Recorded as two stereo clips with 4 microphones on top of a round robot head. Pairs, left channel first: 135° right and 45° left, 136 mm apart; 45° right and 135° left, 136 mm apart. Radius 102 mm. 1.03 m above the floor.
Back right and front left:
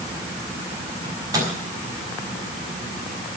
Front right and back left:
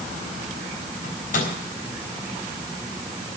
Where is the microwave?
20° right, 5.5 m.